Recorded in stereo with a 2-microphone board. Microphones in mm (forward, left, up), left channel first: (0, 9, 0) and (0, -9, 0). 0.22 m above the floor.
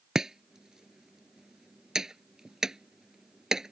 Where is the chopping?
35° right (ahead or behind).